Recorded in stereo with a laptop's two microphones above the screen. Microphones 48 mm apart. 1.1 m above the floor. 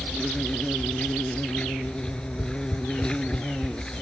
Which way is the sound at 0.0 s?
20° left (ahead or behind).